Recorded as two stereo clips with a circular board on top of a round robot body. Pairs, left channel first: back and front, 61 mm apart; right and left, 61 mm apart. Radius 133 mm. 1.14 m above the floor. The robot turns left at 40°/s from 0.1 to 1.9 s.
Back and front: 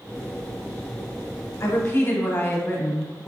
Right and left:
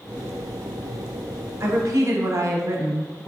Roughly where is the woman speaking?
Behind left.